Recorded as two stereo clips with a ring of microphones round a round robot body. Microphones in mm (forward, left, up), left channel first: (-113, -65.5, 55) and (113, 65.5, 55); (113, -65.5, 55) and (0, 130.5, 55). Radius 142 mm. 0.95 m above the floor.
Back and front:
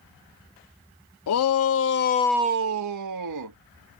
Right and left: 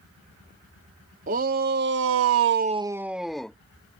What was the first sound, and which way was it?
A shout, straight behind.